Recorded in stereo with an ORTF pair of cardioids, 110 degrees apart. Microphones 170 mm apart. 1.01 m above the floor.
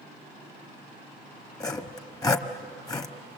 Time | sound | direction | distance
1.6 | sawing | 20° left | 1.2 m